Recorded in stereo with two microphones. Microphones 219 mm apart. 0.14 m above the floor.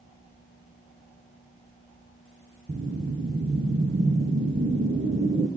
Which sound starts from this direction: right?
A whoosh, at 2.7 s.